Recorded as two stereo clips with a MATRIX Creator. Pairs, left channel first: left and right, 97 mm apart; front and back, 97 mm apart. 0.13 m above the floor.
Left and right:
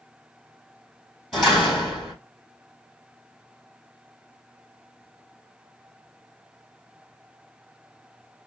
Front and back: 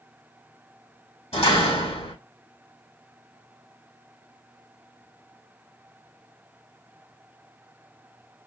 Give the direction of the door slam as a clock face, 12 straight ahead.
12 o'clock.